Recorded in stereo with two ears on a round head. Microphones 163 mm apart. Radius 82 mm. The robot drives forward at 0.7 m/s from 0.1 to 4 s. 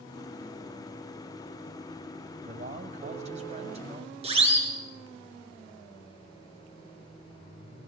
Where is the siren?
35° right (ahead or behind), 7 m.